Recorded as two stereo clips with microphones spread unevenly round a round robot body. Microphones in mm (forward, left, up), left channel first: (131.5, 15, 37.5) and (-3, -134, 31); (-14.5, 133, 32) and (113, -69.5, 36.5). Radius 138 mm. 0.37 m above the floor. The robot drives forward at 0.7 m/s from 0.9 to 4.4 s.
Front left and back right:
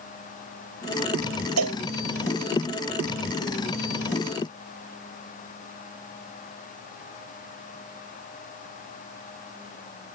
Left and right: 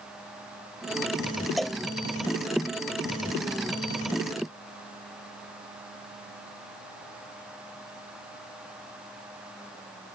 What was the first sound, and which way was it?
A cowbell, 150° right.